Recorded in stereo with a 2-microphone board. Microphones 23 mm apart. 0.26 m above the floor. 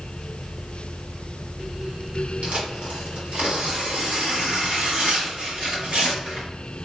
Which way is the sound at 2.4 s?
60° right (ahead or behind).